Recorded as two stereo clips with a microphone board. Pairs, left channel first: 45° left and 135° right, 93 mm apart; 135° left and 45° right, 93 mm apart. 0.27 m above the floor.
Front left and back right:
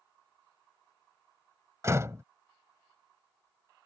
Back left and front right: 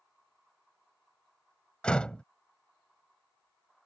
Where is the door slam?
155° right.